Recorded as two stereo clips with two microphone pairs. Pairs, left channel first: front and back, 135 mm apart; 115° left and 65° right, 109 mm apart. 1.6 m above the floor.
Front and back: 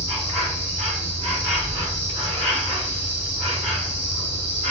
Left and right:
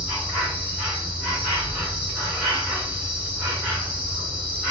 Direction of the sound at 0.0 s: 140° right.